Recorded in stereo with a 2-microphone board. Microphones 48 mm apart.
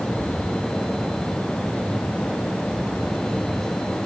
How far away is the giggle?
I don't hear a giggle.